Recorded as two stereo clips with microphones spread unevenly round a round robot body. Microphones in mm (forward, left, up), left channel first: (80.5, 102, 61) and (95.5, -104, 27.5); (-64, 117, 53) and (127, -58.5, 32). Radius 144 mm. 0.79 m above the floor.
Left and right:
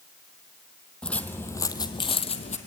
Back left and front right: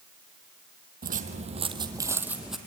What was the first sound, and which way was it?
Footsteps, 15° left.